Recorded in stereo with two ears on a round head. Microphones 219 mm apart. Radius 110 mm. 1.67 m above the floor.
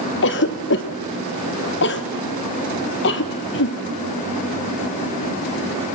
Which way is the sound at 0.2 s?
50° left (ahead or behind).